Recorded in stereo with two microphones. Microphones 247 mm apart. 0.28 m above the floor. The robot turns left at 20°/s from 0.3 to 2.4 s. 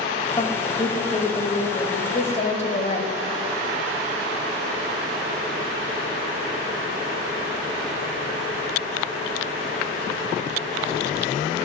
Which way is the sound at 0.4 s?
25° left (ahead or behind).